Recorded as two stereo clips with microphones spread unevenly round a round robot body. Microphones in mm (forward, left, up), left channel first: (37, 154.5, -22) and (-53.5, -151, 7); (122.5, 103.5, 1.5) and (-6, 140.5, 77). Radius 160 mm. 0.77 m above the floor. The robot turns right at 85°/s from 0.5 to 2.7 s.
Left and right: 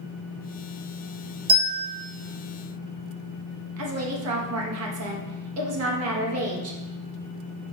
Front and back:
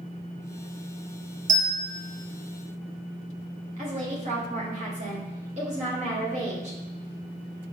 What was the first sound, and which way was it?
A bell, 165° right.